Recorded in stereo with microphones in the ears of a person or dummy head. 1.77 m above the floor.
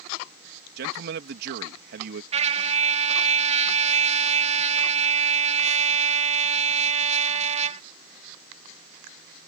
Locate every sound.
0.8 s a man speaking: 65° right (ahead or behind)
2.3 s a trumpet: 30° right (ahead or behind)